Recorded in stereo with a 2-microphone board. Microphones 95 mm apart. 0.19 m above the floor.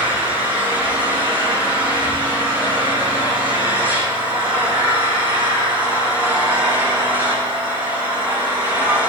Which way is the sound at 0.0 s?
20° right (ahead or behind).